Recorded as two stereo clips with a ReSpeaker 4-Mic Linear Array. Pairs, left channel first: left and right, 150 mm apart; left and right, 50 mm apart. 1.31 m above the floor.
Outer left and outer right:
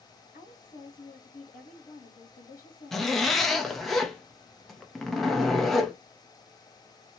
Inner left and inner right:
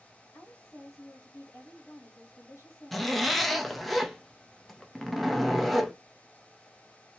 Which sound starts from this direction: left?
A woman speaking, at 0.3 s.